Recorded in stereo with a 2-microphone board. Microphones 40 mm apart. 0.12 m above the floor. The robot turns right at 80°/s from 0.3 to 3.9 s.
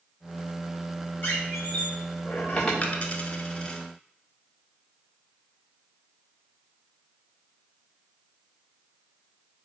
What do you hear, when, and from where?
1.2 s a squeak: 45° left (ahead or behind), 1.7 m; by 2.7 s 15° left (ahead or behind), 1.7 m
2.8 s a dropped coin: 30° left (ahead or behind), 0.8 m; by 3.8 s 15° left (ahead or behind), 0.8 m